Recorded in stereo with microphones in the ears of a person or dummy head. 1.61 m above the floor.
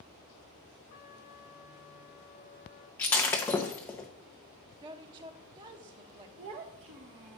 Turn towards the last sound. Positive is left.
turn(degrees=-25)  # may be behind; listen again after turning